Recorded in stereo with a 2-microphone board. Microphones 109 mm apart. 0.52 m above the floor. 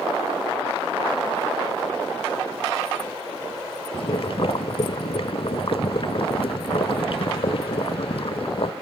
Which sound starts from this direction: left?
Boiling, at 3.9 s.